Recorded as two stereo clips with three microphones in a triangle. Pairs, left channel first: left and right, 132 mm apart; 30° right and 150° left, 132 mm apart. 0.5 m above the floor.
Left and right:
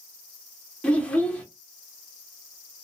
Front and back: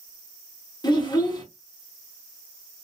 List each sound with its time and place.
0.8 s a child speaking: 15° left, 0.9 m